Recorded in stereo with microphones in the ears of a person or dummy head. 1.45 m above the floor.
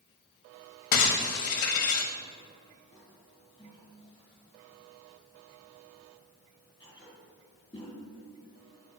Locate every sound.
0.9 s breaking glass: 45° left (ahead or behind), 1.0 m
2.9 s a toilet flushing: 20° left (ahead or behind), 3 m